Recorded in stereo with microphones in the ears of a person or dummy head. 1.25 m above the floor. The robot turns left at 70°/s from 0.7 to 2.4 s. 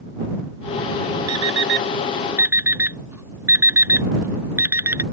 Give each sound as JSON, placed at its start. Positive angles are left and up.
{"t": 1.3, "sound": "an alarm clock", "side_deg": -80}